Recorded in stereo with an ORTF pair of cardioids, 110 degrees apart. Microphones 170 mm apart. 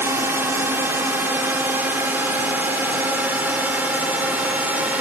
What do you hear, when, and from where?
0.0 s a drone: 15° right; by 5.0 s 10° right